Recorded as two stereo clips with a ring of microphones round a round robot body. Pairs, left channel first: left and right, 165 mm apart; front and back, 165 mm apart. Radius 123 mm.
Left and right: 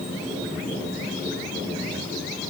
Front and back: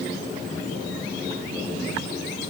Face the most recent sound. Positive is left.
No sound to turn to.